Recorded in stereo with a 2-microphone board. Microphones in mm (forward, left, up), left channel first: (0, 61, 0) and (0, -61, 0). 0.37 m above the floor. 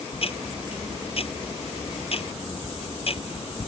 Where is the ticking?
55° left (ahead or behind).